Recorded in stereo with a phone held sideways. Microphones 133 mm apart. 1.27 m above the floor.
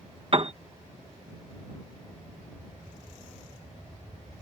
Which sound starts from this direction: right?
A piano, at 0.3 s.